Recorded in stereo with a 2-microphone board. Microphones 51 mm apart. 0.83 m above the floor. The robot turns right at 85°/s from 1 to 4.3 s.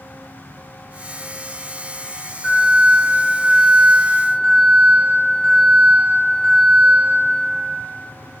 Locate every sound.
2.4 s an alarm: 170° right, 1.9 m; by 7.0 s 15° right, 1.9 m